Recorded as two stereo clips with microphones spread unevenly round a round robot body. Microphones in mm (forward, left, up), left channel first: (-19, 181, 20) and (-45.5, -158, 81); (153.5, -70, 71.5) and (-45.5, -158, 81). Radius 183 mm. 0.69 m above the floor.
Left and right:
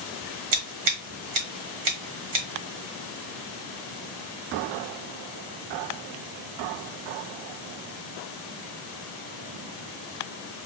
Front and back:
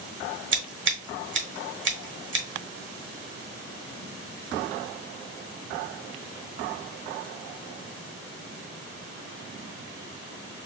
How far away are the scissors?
About 1.8 m.